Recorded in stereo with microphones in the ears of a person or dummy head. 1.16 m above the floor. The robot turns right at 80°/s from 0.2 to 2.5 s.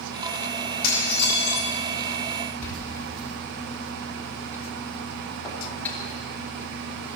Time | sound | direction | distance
0.8 | dishes clattering | 80° left | 5 m
2.6 | a door slam | 15° left (ahead or behind) | 2.5 m